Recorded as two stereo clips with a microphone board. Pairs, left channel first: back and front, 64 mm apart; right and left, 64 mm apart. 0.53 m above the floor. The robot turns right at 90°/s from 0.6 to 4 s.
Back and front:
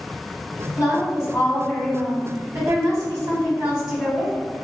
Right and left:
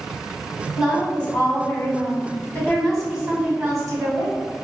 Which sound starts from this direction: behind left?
A woman speaking, at 0.8 s.